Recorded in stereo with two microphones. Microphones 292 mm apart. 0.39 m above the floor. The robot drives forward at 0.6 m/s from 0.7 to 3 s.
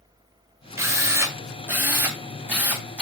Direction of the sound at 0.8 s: 10° right (ahead or behind).